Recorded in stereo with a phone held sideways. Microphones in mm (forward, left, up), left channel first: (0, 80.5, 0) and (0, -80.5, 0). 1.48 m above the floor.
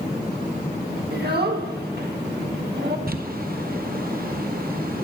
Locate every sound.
1.1 s a child speaking: 70° right (ahead or behind), 1.4 m
3.1 s crumpling: 60° right (ahead or behind), 0.8 m